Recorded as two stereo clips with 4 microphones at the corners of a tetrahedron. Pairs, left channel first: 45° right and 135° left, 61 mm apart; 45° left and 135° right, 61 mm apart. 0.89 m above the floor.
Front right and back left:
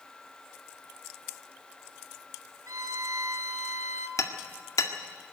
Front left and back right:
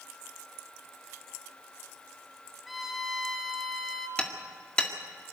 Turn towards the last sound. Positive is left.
turn(degrees=-30)